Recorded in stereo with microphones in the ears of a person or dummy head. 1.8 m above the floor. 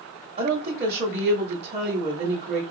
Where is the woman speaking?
35° right (ahead or behind), 0.9 m.